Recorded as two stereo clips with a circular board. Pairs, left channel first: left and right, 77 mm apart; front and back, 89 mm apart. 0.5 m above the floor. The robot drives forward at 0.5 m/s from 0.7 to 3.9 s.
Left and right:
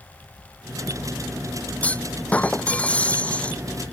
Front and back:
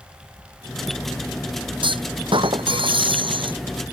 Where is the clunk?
160° left; by 3.6 s 165° left.